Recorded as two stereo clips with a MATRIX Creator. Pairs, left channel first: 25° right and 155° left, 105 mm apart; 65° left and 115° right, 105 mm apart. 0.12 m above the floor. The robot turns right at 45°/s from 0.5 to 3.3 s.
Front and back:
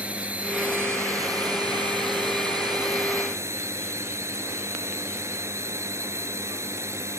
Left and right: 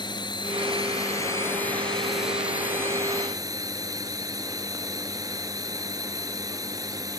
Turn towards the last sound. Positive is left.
turn(degrees=-150)